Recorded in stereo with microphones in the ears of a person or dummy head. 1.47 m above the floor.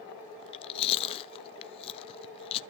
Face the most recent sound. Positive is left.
turn(degrees=35)  # may be behind; listen again after turning